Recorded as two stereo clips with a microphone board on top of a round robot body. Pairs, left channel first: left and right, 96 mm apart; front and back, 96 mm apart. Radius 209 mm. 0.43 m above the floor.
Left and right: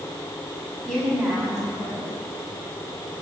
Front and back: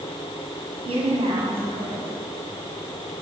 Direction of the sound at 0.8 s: 175° left.